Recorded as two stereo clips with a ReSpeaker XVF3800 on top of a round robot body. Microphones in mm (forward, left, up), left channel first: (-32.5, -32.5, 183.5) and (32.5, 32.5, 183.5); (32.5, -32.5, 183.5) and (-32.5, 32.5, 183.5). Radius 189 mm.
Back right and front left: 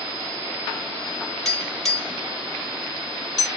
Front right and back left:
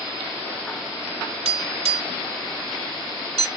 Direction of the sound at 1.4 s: 140° left.